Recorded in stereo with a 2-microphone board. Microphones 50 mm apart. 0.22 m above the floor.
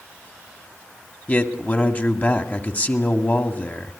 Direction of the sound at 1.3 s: 35° left (ahead or behind).